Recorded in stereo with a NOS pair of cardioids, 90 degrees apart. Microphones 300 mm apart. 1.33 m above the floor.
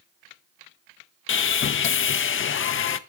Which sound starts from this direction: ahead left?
Sawing, at 1.3 s.